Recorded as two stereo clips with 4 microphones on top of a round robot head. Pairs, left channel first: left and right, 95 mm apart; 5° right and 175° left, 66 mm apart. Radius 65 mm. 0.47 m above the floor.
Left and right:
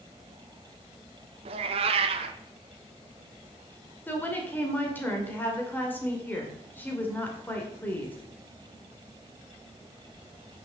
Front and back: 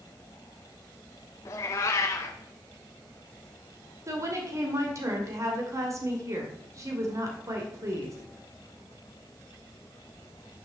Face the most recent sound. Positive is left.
turn(degrees=160)